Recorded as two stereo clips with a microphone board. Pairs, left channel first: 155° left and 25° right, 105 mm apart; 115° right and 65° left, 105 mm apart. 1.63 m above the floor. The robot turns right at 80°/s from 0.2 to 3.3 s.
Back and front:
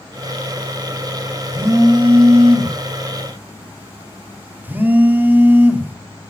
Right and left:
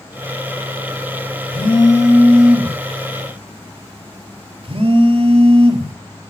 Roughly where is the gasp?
No gasp in this recording.